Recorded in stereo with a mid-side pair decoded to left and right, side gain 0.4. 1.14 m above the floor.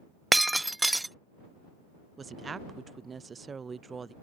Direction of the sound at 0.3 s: 10° right.